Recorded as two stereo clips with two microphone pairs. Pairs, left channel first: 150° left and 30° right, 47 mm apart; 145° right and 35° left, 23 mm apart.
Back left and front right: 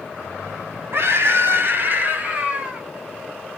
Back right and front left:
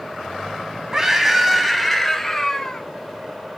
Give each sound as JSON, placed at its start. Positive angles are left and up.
{"t": 0.9, "sound": "a scream", "azimuth_deg": -30, "distance_m": 2.5}